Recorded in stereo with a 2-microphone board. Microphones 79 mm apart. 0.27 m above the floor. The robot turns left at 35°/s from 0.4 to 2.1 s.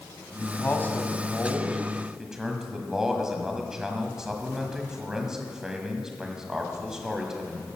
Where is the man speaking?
50° left, 1.6 m; by 7.7 s 10° right, 1.6 m.